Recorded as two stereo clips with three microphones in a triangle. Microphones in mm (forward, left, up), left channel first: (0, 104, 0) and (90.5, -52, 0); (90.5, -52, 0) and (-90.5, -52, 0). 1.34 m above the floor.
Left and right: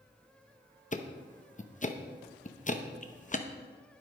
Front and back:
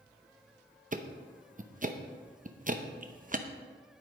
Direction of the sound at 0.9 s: 155° left.